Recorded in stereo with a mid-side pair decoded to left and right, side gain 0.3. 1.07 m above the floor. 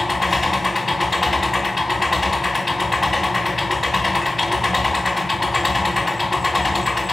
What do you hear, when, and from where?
0.0 s an engine running: 25° left, 2.5 m